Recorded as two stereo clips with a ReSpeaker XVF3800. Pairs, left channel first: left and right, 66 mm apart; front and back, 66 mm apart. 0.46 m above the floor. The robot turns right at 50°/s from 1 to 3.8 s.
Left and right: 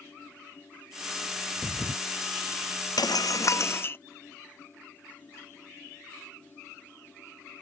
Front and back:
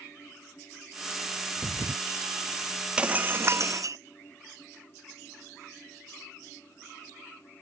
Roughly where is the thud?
Behind right.